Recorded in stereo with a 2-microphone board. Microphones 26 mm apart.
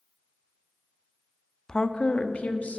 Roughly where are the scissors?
No scissors in this recording.